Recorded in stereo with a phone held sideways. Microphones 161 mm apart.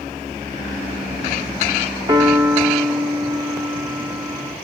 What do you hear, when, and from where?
2.1 s a piano: 25° right (ahead or behind), 1.1 m